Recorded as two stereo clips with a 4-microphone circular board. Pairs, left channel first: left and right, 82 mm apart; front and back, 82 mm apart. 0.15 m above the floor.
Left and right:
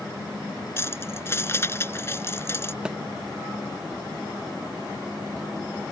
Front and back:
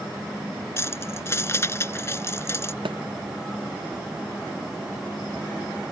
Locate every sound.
0.8 s keys jangling: 45° left
2.9 s a thud: 170° right